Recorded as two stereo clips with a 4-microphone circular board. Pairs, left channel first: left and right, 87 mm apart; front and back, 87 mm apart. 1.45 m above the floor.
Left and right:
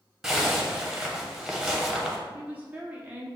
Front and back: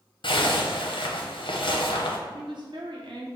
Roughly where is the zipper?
Ahead.